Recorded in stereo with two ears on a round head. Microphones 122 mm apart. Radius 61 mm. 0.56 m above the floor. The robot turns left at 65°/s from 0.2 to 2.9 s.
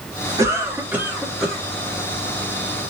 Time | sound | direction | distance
0.4 | a cough | 25° right (ahead or behind) | 1.0 m